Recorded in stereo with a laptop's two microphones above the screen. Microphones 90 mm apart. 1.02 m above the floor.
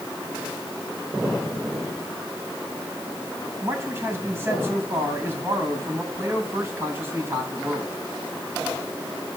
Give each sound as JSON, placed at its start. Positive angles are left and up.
{"t": 3.6, "sound": "a man speaking", "side_deg": -25, "distance_m": 7.5}